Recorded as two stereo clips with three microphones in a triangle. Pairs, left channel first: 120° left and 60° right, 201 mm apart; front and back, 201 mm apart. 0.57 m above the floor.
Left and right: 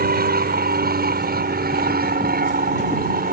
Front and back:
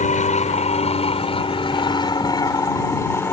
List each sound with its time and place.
0.0 s an aircraft: 40° right; by 3.3 s 75° right